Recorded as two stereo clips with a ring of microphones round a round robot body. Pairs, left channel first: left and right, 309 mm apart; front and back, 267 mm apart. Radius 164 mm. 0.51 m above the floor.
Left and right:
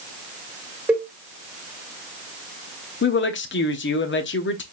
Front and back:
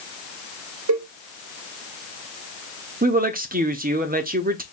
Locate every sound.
0.9 s a cowbell: 175° right, 2.5 m
3.0 s a woman speaking: 130° left, 1.1 m